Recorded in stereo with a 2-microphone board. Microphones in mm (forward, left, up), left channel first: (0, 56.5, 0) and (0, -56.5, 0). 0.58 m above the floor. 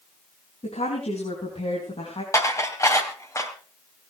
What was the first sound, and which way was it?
A woman speaking, 75° left (ahead or behind).